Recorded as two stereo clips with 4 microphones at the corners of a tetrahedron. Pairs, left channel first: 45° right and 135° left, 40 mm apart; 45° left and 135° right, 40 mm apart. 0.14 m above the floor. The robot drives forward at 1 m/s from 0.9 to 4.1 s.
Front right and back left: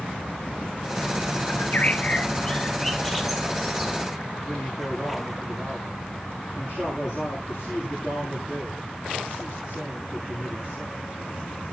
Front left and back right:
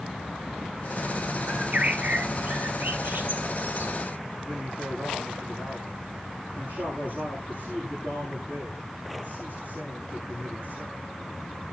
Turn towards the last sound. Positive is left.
turn(degrees=-165)